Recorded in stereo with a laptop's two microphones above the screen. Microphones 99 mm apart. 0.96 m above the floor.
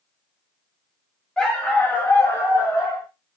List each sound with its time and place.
1.4 s a dog barking: 5° left (ahead or behind), 0.9 m; by 3.1 s 30° left (ahead or behind), 1.8 m